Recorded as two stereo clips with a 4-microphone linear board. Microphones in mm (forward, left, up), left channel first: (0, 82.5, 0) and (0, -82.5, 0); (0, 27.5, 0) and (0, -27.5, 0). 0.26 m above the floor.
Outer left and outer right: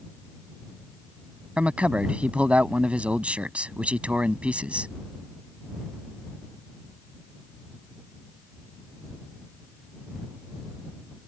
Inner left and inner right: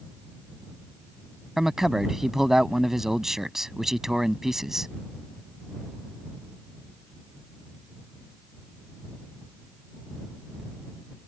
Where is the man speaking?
5° right (ahead or behind).